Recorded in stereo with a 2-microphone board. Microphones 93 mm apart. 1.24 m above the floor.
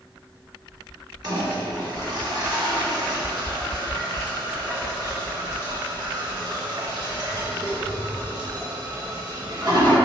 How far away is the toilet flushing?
About 1.1 m.